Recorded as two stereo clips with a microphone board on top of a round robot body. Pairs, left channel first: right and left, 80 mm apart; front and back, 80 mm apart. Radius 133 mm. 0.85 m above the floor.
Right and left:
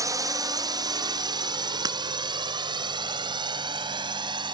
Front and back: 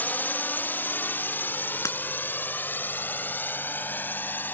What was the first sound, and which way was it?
A drone, 60° left.